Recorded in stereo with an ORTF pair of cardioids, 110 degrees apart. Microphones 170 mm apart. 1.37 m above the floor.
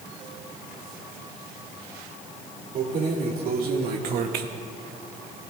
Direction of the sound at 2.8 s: 60° right.